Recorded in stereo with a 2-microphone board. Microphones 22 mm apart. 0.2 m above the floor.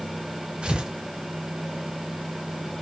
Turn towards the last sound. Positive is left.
turn(degrees=-60)  # may be behind; listen again after turning